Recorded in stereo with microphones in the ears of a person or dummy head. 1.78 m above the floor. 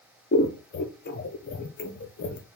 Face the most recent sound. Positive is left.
turn(degrees=45)  # may be behind; listen again after turning